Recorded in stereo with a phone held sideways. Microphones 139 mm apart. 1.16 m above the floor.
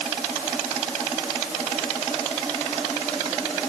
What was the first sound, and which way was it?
Only background noise.